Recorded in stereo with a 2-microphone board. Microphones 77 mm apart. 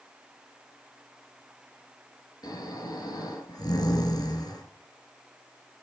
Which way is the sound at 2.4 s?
60° left (ahead or behind).